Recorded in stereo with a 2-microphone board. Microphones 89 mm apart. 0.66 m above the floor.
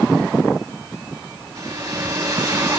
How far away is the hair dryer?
About 5 m.